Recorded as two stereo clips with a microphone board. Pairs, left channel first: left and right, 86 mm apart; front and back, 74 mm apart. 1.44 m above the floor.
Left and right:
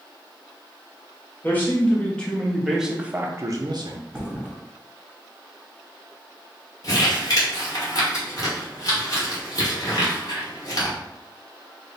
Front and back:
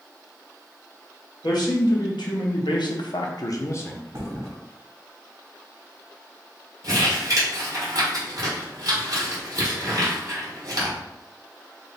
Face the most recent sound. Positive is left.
turn(degrees=135)